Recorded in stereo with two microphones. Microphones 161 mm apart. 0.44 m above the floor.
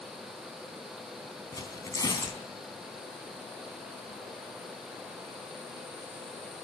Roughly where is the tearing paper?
Left.